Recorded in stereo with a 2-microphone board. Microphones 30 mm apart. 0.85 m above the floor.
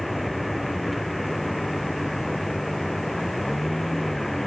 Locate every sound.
0.0 s a vehicle: centre (ahead or behind); by 4.5 s 5° left (ahead or behind)